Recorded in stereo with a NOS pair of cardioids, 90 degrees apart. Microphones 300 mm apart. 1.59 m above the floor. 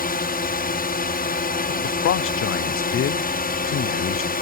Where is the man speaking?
45° left.